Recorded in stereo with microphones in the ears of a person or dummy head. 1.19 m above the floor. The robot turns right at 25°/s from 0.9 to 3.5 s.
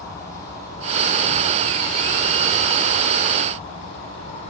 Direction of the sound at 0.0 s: 20° left.